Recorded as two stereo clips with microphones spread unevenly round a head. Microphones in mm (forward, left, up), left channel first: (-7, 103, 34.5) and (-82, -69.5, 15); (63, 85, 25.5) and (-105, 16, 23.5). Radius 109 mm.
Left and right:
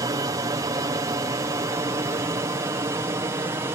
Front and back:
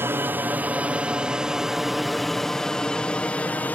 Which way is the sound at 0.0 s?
100° right.